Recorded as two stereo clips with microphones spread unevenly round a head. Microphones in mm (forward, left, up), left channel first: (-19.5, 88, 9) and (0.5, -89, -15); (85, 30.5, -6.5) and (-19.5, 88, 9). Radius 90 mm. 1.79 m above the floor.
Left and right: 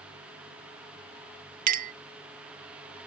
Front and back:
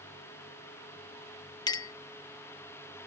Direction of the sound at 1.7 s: 85° right.